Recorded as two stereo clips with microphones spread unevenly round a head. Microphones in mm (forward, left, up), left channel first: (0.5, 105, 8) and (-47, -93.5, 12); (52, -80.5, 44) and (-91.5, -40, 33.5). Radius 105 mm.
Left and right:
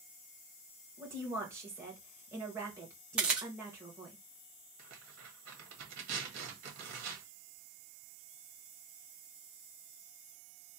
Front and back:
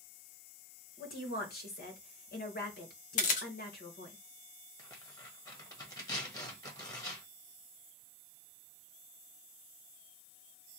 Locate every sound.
1.0 s a woman speaking: 25° right, 1.5 m
3.2 s a camera shutter: 20° right, 0.6 m
4.8 s tearing paper: 80° right, 1.4 m